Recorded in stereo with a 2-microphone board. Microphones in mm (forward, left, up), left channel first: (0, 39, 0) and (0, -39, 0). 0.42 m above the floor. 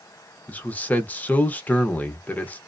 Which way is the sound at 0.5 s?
20° left (ahead or behind).